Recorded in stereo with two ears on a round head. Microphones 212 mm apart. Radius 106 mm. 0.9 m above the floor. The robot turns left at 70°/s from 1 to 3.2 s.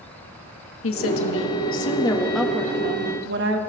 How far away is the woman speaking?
About 1.5 m.